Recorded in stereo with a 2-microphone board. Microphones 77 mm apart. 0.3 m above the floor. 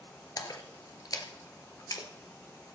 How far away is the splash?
About 1.6 m.